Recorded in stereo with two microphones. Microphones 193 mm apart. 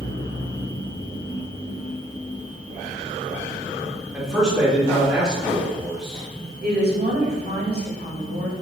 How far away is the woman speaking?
About 1.4 m.